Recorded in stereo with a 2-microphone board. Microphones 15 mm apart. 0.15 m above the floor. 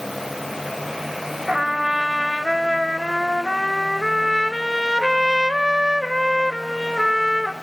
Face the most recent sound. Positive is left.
turn(degrees=-20)  # may be behind; listen again after turning